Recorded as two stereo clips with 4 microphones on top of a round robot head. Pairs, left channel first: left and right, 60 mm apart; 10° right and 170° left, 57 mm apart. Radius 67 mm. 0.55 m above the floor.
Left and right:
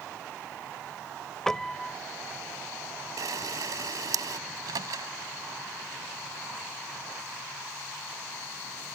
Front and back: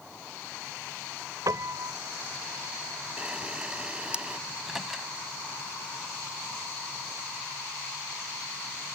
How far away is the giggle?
No giggle in this recording.